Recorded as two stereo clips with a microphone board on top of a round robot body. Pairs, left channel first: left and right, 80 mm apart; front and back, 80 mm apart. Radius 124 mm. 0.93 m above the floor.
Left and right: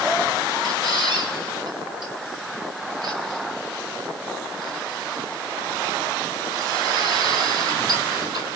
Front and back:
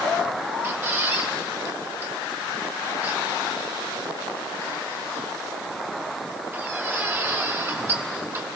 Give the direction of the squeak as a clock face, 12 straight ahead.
4 o'clock.